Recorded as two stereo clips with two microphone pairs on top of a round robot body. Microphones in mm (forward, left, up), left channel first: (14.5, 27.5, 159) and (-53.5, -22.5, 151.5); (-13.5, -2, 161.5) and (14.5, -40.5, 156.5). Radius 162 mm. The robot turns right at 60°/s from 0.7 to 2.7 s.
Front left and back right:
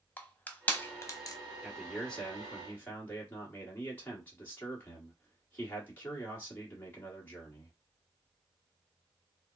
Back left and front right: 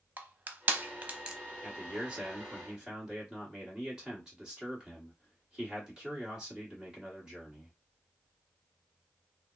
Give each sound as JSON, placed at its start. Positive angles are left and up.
{"t": 0.2, "sound": "crushing", "azimuth_deg": -35, "distance_m": 0.9}
{"t": 1.6, "sound": "a man speaking", "azimuth_deg": -85, "distance_m": 1.4}